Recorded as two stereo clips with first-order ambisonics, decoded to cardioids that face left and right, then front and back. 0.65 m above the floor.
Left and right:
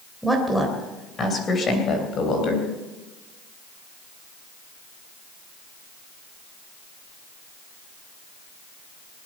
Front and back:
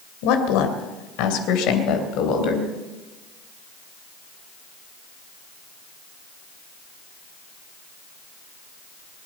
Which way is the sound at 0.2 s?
Straight ahead.